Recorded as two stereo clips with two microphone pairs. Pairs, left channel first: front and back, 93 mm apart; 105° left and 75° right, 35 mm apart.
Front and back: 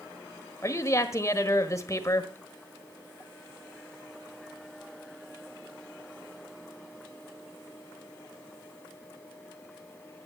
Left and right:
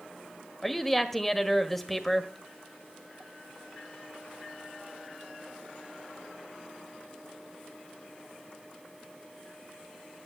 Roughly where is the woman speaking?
Ahead left.